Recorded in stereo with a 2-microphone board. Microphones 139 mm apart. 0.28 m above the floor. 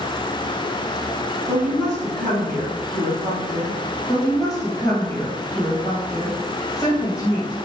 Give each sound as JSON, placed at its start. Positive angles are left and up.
{"t": 1.5, "sound": "a woman speaking", "side_deg": 0, "distance_m": 1.9}
{"t": 4.1, "sound": "a woman speaking", "side_deg": 25, "distance_m": 1.8}